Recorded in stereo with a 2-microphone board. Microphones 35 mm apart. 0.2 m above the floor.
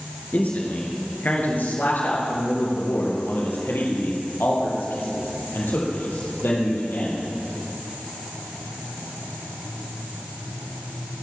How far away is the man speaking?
About 3.5 m.